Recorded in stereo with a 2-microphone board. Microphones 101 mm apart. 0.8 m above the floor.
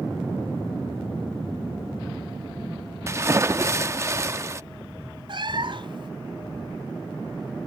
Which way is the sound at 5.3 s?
55° right (ahead or behind).